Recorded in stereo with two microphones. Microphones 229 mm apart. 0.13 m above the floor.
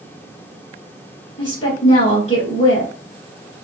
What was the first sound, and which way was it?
A woman speaking, 25° left (ahead or behind).